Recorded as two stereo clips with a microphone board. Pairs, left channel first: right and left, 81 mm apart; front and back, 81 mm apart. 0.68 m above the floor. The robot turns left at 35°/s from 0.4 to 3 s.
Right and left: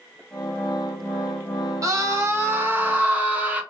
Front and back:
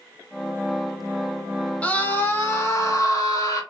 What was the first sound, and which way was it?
A scream, 65° left.